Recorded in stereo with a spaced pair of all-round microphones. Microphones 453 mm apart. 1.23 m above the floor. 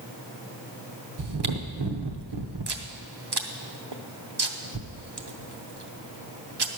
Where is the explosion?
I don't hear an explosion.